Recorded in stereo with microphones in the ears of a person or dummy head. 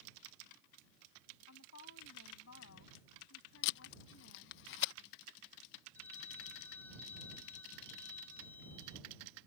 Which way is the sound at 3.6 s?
70° left (ahead or behind).